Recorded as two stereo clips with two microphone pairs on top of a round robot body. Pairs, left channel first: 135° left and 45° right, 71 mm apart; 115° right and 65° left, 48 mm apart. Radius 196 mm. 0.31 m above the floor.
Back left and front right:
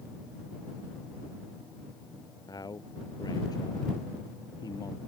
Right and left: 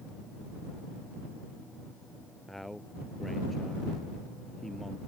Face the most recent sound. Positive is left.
turn(degrees=160)